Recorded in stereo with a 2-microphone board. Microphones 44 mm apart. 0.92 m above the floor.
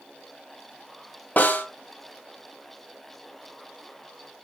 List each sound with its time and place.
1.4 s a snare drum: 40° left (ahead or behind), 1.9 m